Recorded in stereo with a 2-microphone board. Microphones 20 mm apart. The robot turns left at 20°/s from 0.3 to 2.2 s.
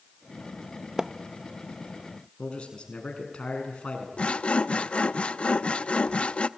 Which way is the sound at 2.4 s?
55° left (ahead or behind).